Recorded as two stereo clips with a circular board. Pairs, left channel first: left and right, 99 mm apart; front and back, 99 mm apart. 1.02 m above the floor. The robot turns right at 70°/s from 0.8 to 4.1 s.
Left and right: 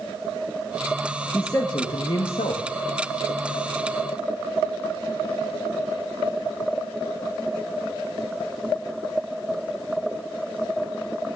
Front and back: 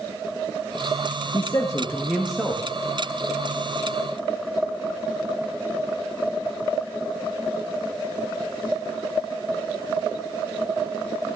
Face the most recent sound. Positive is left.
turn(degrees=-145)